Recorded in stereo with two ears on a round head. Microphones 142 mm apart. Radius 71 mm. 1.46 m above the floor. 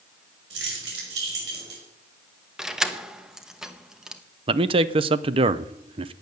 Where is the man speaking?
35° right (ahead or behind), 0.7 m.